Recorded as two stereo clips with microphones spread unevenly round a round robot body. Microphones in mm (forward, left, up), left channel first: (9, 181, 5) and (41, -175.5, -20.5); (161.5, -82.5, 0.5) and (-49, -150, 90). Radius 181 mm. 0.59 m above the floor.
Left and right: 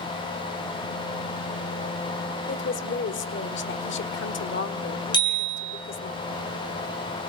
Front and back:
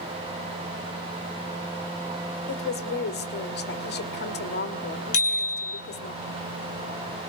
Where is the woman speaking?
35° left, 2.0 m.